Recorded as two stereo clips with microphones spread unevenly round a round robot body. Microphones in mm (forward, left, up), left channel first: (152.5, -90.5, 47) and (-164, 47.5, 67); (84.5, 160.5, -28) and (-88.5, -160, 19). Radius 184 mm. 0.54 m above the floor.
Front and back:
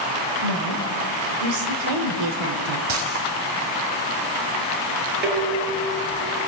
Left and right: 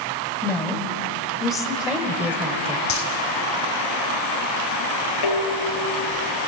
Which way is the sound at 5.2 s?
90° left.